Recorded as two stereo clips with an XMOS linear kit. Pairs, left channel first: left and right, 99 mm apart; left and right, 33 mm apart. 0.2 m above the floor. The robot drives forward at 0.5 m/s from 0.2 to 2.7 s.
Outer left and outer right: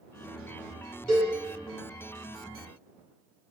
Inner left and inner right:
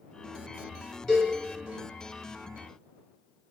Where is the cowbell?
15° left (ahead or behind), 1.9 m.